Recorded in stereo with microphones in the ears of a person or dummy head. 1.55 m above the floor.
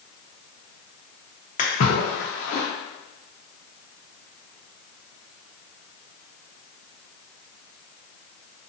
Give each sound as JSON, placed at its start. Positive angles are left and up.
{"t": 1.6, "sound": "a splash", "side_deg": 35, "distance_m": 1.0}